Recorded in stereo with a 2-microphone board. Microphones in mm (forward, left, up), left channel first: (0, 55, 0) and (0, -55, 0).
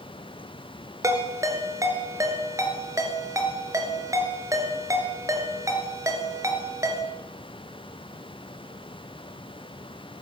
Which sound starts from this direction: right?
A ringtone, at 1.0 s.